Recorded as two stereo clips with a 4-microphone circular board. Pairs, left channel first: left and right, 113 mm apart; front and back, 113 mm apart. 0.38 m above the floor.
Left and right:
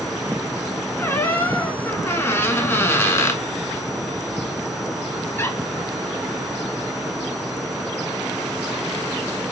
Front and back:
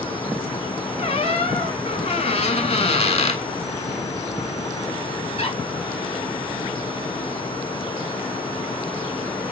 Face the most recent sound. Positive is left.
turn(degrees=20)